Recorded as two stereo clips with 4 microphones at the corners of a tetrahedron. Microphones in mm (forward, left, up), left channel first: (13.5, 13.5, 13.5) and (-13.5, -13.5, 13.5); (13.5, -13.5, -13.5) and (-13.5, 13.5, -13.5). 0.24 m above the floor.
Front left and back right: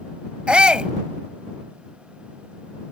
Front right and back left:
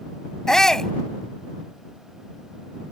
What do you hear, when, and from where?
0.5 s a shout: 105° right